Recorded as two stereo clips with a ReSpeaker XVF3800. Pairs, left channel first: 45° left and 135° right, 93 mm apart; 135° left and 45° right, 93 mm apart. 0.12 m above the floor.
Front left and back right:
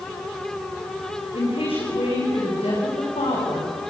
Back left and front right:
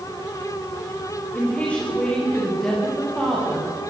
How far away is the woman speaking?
About 7.5 m.